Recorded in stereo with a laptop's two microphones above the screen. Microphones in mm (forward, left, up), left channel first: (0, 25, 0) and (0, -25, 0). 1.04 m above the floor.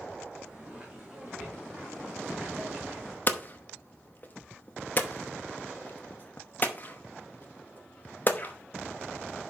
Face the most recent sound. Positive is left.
turn(degrees=35)  # may be behind; listen again after turning